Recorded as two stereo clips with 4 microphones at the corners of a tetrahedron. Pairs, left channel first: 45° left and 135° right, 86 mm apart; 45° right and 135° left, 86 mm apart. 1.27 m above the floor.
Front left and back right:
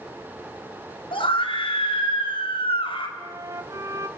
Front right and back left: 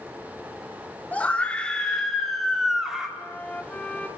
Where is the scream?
30° left, 4 m; by 3.1 s 55° left, 4 m.